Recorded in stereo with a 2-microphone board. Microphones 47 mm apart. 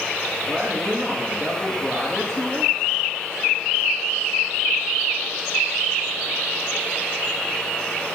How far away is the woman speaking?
About 4 m.